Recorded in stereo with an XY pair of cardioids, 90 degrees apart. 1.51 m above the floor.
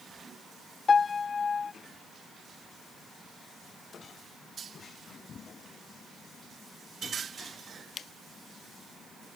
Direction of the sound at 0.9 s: 40° left.